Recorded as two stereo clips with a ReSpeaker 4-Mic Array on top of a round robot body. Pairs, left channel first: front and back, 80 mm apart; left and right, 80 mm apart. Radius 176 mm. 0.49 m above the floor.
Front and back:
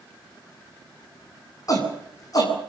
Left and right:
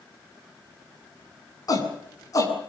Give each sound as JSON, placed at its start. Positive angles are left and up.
{"t": 1.7, "sound": "a shout", "azimuth_deg": 45, "distance_m": 7.5}